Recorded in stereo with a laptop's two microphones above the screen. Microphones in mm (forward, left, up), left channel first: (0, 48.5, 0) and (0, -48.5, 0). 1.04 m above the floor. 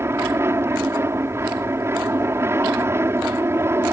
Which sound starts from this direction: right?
An aircraft, at 0.0 s.